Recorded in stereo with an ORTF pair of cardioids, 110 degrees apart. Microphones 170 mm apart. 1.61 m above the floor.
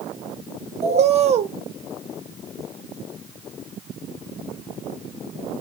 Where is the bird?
40° right, 0.7 m.